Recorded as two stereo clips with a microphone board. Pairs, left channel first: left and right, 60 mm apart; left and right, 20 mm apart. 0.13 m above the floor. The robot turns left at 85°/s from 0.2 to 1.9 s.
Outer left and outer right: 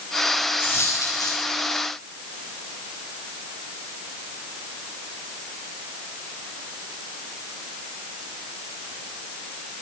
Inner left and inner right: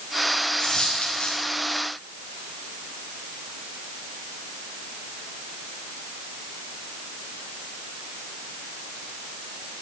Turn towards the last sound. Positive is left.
turn(degrees=45)